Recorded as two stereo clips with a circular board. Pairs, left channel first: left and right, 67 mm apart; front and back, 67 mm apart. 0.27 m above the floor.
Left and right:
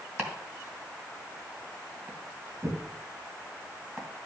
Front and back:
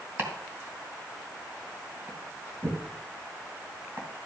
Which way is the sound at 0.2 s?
140° right.